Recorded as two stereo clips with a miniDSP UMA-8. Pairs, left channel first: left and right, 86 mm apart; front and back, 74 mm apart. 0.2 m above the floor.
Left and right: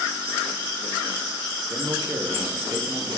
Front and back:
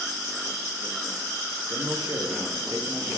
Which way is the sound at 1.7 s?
145° right.